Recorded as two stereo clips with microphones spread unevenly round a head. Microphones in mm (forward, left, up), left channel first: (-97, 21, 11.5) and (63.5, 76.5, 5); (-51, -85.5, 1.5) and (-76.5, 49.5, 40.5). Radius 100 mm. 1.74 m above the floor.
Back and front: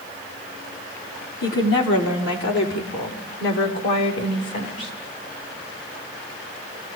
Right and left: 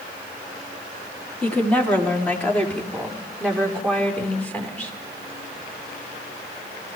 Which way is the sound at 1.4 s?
160° right.